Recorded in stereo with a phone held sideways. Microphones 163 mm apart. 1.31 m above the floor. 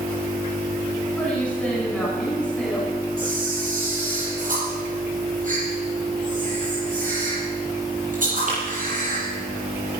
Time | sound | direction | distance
1.1 | a woman speaking | 10° left (ahead or behind) | 9.5 m
3.2 | a camera shutter | 60° right (ahead or behind) | 7.5 m